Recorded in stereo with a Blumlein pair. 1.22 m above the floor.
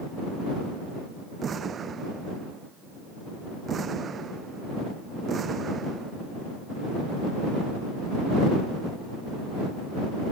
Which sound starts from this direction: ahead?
An explosion, at 1.4 s.